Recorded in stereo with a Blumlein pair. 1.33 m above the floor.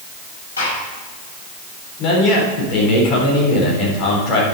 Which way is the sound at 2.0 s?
35° left.